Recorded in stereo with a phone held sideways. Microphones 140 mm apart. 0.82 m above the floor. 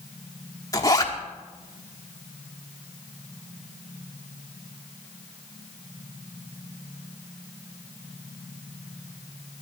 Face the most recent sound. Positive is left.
turn(degrees=25)  # may be behind; listen again after turning